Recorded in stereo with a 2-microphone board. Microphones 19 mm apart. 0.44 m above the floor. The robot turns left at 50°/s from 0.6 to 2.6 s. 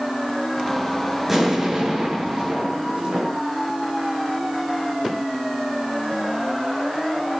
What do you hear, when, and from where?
1.3 s an explosion: 10° right, 6.5 m; by 3.4 s 80° right, 6.5 m